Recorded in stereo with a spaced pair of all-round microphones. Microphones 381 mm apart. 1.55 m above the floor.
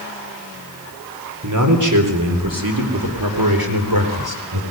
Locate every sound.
1.4 s a man speaking: 50° right (ahead or behind), 4 m; by 4.6 s 75° right (ahead or behind), 4.5 m